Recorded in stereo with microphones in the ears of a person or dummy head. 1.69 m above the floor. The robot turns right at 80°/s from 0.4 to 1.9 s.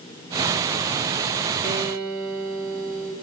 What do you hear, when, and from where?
1.6 s a guitar: 25° left (ahead or behind), 5.5 m; by 3.1 s 5° left (ahead or behind), 5.5 m